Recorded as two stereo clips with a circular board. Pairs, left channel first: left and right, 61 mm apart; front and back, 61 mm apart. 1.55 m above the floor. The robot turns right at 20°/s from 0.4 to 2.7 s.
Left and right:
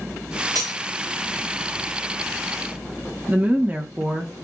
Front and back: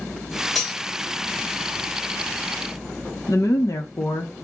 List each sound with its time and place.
0.6 s cutlery clinking: 90° right, 2.5 m; by 0.8 s 85° right, 2.5 m
3.3 s a woman speaking: 25° right, 1.5 m